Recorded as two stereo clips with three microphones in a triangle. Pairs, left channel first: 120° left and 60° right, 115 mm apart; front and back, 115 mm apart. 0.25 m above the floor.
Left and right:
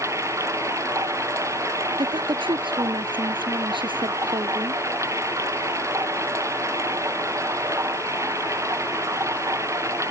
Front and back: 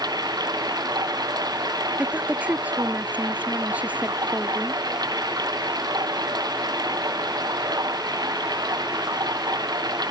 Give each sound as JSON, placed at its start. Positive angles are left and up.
{"t": 0.0, "sound": "running water", "azimuth_deg": -125}
{"t": 2.0, "sound": "a woman speaking", "azimuth_deg": -105}